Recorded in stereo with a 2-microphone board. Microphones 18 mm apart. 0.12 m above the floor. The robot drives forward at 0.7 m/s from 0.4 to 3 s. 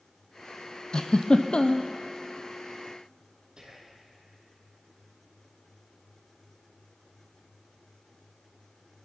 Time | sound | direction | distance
0.9 | a giggle | 50° left (ahead or behind) | 1.2 m
3.6 | whispering | 45° right (ahead or behind) | 4.5 m